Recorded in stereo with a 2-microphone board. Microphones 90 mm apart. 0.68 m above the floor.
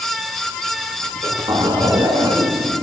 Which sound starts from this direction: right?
A zipper, at 1.0 s.